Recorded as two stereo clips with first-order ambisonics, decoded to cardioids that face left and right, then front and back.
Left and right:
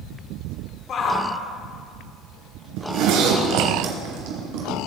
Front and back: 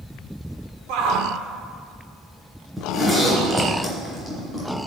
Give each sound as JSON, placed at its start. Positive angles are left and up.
{"t": 0.9, "sound": "a shout", "azimuth_deg": 150, "distance_m": 1.9}
{"t": 2.8, "sound": "a zipper", "azimuth_deg": -95, "distance_m": 3.0}